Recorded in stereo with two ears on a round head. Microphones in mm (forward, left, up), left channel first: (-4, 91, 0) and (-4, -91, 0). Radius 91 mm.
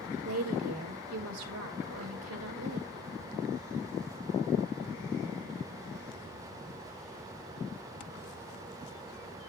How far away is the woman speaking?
About 3 m.